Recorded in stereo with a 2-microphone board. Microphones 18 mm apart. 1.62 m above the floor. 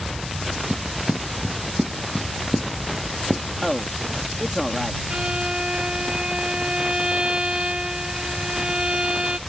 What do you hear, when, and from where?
0.7 s footsteps: 40° right (ahead or behind); by 3.4 s 15° right (ahead or behind)
3.6 s a man speaking: centre (ahead or behind)
5.1 s a violin: 60° right (ahead or behind)